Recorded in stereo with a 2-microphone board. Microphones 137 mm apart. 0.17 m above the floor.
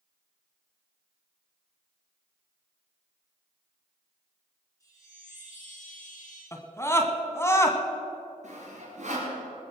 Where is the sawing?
55° right (ahead or behind), 4 m.